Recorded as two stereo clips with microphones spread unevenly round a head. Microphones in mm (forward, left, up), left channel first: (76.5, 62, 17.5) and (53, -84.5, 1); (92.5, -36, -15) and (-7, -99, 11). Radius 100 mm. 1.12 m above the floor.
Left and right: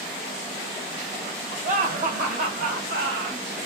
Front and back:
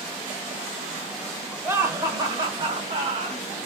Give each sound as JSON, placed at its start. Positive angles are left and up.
{"t": 1.6, "sound": "laughter", "azimuth_deg": -75, "distance_m": 1.3}